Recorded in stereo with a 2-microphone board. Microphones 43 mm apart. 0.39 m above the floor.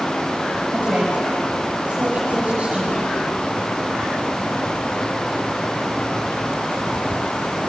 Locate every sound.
0.7 s a woman speaking: 35° right (ahead or behind), 6 m